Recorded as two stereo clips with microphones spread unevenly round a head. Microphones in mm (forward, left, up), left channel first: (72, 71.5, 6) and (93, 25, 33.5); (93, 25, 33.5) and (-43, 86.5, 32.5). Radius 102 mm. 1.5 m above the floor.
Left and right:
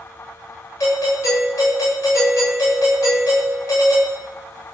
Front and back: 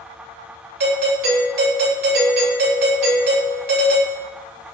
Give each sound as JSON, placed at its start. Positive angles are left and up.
{"t": 0.8, "sound": "a doorbell", "azimuth_deg": 155, "distance_m": 9.5}